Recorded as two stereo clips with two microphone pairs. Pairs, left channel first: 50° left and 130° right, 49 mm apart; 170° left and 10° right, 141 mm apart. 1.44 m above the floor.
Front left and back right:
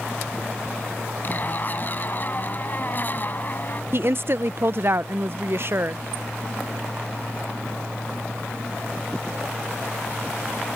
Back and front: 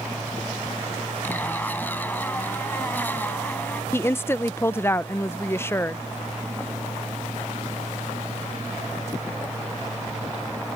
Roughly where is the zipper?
Left.